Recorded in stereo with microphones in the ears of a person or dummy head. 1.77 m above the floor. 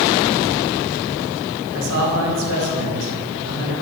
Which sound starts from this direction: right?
A man speaking, at 1.7 s.